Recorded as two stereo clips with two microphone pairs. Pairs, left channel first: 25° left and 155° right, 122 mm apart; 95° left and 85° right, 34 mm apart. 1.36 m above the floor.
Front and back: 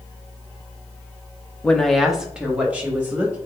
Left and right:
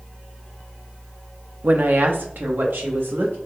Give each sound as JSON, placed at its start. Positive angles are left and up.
{"t": 1.6, "sound": "a woman speaking", "azimuth_deg": -55, "distance_m": 0.7}